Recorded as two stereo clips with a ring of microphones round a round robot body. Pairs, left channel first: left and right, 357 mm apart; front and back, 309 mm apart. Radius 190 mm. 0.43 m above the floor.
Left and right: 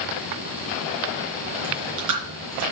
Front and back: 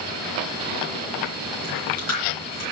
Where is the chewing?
45° right, 3.5 m.